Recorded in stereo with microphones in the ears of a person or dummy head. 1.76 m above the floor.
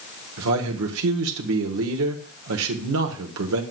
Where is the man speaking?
75° right (ahead or behind), 1.2 m.